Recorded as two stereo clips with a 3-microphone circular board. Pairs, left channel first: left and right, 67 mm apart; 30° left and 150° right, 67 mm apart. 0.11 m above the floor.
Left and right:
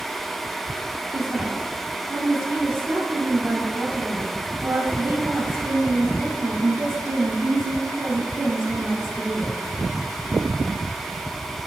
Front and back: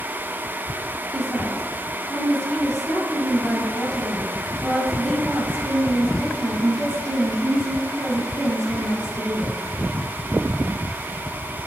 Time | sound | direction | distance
1.1 | a woman speaking | 40° right | 2.5 m